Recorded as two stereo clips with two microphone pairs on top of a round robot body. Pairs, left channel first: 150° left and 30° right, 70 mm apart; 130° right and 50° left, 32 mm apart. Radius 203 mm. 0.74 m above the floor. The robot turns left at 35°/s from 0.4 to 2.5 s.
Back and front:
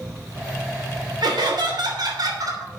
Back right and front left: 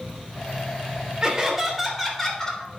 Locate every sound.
1.2 s laughter: 20° right, 3 m; by 2.7 s 65° right, 3 m